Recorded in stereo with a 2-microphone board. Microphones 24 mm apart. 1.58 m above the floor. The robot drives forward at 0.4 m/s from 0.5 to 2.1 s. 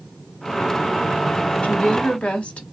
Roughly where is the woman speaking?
Left.